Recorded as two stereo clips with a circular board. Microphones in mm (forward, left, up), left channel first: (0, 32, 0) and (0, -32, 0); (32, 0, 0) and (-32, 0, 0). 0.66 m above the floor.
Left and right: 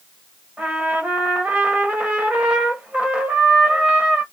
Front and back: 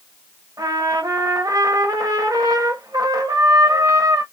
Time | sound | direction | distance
0.6 | a trumpet | 160° right | 1.3 m